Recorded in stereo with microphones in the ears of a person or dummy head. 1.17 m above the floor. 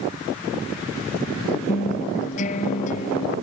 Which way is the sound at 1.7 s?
45° left (ahead or behind).